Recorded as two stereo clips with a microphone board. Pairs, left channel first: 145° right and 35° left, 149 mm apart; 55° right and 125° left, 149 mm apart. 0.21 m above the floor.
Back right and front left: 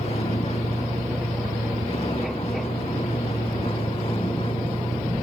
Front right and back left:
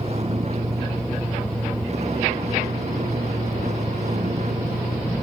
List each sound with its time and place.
0.0 s a vehicle: 170° left; by 5.2 s 165° left